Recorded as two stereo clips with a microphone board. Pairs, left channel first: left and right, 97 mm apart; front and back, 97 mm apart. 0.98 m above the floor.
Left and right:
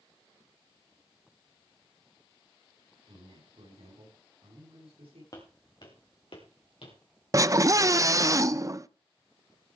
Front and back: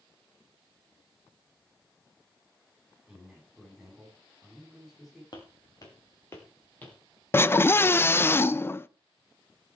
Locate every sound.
3.1 s a man speaking: 90° right, 7.5 m
5.3 s footsteps: 40° left, 3.5 m; by 7.0 s 75° left, 4 m
7.3 s a scream: 55° right, 0.5 m